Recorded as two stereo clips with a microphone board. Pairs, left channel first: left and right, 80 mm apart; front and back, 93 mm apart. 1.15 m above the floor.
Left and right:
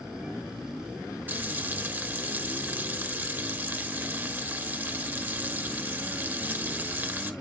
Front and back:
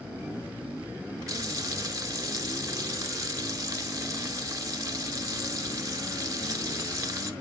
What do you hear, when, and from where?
1.3 s frying: 145° right, 0.9 m